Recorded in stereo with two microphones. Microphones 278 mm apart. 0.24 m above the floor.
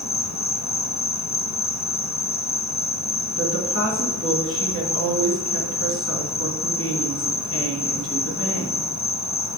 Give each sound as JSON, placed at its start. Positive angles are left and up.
{"t": 0.0, "sound": "an insect", "side_deg": 70, "distance_m": 0.7}
{"t": 3.4, "sound": "a woman speaking", "side_deg": 50, "distance_m": 2.5}